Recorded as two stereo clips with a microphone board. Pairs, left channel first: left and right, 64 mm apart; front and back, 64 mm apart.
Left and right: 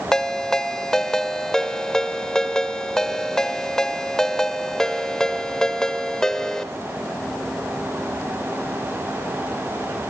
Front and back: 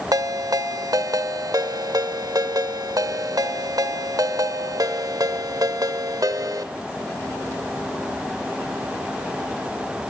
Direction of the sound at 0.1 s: 170° left.